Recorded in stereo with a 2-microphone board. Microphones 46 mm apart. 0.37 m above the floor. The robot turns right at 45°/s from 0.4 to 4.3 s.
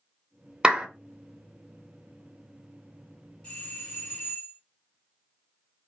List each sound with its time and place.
0.6 s a clap: 20° right (ahead or behind), 0.6 m; by 0.9 s 25° right (ahead or behind), 0.6 m
3.4 s a doorbell: 25° left (ahead or behind), 2 m; by 4.6 s 30° left (ahead or behind), 2 m